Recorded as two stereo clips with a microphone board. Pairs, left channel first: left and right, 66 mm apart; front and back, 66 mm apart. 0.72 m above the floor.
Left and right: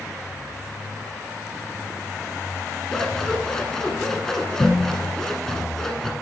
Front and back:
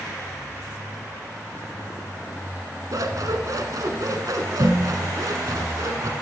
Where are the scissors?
170° left, 1.1 m.